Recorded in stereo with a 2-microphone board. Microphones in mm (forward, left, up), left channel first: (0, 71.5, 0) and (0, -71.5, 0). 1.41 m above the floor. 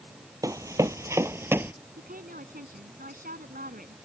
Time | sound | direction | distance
0.4 | running footsteps | 25° right (ahead or behind) | ?
2.0 | a woman speaking | 80° right | ?